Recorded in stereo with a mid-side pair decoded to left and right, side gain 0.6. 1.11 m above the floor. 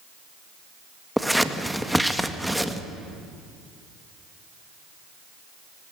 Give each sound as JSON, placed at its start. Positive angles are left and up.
{"t": 1.2, "sound": "scissors", "azimuth_deg": 0, "distance_m": 1.7}